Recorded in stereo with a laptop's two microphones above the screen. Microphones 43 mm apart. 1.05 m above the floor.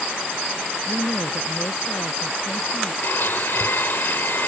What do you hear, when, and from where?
0.9 s a woman speaking: 65° left (ahead or behind); by 2.9 s 70° left (ahead or behind)
3.0 s a blender: 60° left (ahead or behind)